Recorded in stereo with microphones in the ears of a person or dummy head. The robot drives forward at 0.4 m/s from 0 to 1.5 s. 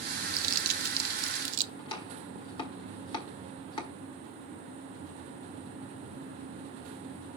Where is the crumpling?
50° right (ahead or behind), 1.1 m; by 1.7 s 70° right (ahead or behind), 0.9 m.